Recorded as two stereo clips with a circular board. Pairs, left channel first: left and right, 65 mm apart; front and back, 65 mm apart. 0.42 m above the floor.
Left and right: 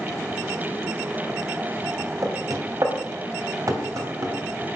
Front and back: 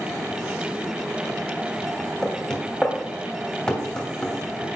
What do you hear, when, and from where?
2.2 s knocking: 75° right, 2 m